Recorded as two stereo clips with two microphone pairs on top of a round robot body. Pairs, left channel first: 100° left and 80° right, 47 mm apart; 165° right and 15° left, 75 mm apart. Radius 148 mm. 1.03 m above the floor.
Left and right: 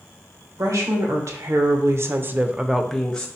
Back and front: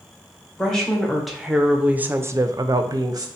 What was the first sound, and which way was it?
A woman speaking, 80° right.